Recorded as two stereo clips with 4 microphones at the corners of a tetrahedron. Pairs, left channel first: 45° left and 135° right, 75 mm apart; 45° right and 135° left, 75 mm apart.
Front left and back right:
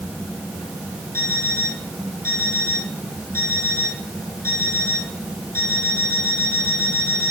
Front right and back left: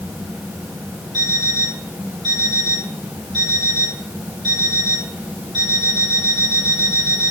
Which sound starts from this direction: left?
An alarm clock, at 1.1 s.